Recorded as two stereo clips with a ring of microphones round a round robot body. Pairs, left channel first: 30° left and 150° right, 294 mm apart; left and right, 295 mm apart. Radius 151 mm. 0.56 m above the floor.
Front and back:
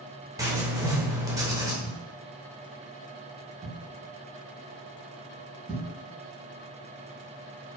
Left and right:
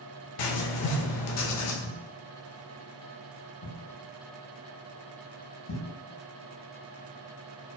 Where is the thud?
125° left, 1.8 m.